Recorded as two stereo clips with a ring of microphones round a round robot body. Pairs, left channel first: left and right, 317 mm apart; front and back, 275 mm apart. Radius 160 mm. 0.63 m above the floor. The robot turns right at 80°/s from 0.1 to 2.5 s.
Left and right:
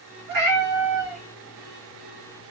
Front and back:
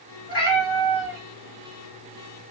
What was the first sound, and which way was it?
A cat meowing, 65° right.